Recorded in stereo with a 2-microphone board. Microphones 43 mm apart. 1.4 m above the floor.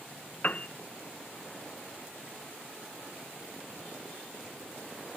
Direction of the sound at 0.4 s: 40° left (ahead or behind).